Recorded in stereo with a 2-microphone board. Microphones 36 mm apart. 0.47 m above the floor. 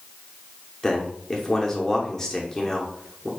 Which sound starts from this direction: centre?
A man speaking, at 0.8 s.